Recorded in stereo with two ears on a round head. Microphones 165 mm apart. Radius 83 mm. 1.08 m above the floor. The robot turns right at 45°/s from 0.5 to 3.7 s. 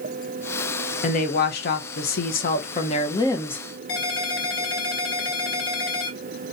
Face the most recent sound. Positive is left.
turn(degrees=75)  # may be behind; listen again after turning